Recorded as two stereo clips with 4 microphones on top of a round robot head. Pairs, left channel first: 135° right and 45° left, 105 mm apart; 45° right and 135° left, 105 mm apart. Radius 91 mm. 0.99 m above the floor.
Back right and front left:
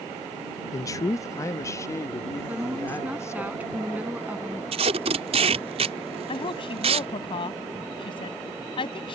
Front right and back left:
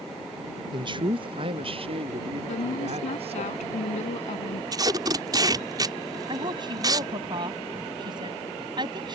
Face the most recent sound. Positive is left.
turn(degrees=180)